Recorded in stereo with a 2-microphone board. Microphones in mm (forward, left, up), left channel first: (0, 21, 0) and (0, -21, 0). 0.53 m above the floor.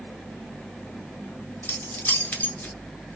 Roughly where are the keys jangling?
Left.